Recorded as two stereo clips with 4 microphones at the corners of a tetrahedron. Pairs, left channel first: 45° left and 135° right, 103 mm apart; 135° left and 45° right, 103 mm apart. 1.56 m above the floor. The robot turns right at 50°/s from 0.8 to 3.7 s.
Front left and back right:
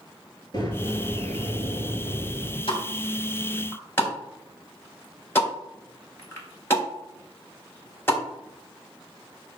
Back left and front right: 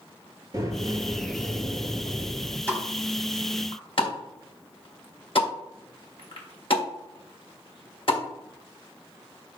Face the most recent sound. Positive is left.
turn(degrees=110)